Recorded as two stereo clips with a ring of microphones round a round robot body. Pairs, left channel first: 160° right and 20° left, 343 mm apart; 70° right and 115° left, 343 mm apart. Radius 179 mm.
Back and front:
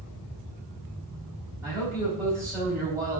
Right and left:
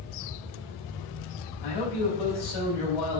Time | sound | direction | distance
1.6 | a man speaking | 60° right | 4.5 m